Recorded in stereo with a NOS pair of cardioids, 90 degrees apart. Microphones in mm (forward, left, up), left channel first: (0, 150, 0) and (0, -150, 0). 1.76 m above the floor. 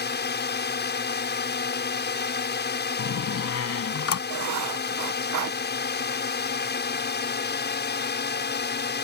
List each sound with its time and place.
0.0 s a drone: 35° left
3.0 s a door slam: 50° left
4.3 s writing: 65° right